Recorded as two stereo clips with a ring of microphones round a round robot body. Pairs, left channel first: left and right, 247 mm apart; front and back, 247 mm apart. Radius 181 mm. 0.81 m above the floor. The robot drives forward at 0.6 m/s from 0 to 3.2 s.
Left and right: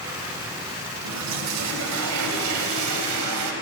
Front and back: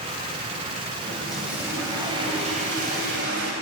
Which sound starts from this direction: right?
A toilet flushing, at 1.0 s.